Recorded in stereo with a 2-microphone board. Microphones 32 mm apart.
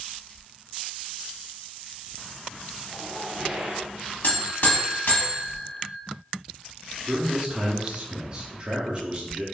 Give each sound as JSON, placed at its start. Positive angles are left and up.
{"t": 2.9, "sound": "a zipper", "side_deg": -30, "distance_m": 1.7}
{"t": 4.2, "sound": "a buzzer", "side_deg": 60, "distance_m": 0.9}
{"t": 7.1, "sound": "a man speaking", "side_deg": -30, "distance_m": 0.7}